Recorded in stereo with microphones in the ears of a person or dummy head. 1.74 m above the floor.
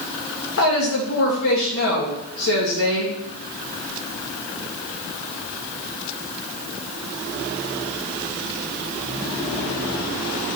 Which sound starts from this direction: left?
A woman speaking, at 0.6 s.